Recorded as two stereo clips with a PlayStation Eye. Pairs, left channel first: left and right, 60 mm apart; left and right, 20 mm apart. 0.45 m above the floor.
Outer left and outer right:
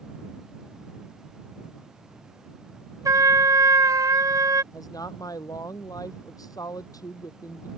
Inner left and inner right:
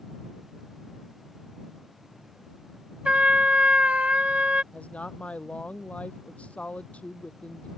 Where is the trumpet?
75° right (ahead or behind).